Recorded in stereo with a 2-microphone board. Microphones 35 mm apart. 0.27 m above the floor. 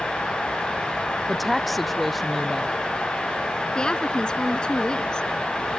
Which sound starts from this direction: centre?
A woman speaking, at 1.3 s.